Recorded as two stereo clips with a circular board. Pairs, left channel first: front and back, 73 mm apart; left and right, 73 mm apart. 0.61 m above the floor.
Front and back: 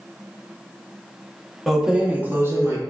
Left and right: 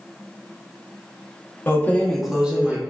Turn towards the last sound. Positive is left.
turn(degrees=-145)